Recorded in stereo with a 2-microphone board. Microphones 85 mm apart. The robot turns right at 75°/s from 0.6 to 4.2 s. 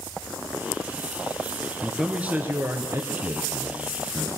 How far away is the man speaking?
About 1.6 m.